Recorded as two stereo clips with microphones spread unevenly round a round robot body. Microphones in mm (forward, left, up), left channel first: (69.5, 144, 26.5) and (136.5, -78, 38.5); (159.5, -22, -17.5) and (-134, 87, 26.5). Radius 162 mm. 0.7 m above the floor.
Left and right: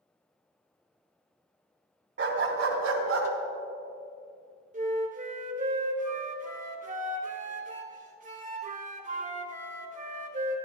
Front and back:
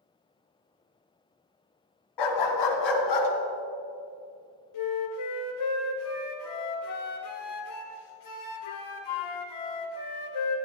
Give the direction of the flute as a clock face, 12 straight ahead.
1 o'clock.